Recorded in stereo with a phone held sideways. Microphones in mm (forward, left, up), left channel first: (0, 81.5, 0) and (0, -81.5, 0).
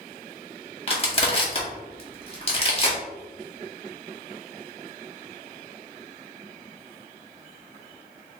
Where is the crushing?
40° left (ahead or behind), 1.0 m.